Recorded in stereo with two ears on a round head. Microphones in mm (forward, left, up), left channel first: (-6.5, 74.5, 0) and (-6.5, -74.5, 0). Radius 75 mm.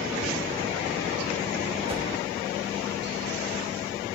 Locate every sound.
1.9 s a whoosh: 30° right (ahead or behind), 1.5 m